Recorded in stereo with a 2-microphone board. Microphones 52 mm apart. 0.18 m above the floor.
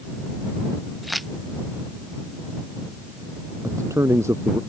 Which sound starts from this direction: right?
A man speaking, at 3.6 s.